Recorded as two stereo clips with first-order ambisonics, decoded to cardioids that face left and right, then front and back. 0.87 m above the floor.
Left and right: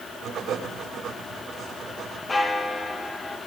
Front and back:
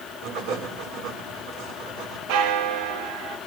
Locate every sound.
0.2 s writing: 150° right, 8.5 m
2.3 s a bell: 170° left, 1.3 m